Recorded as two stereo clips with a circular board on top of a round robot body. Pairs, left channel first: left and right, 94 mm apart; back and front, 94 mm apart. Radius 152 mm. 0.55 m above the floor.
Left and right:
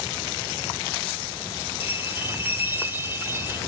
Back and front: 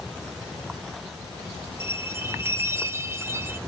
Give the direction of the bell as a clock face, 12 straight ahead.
1 o'clock.